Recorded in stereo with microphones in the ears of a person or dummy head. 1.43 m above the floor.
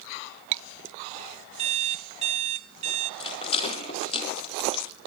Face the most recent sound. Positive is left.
turn(degrees=30)  # may be behind; listen again after turning